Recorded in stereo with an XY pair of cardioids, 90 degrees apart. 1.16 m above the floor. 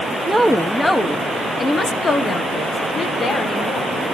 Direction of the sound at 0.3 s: 5° right.